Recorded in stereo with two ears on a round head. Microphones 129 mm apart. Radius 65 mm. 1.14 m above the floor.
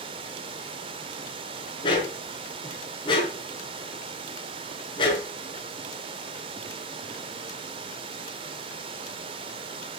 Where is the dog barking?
35° left (ahead or behind), 5.5 m.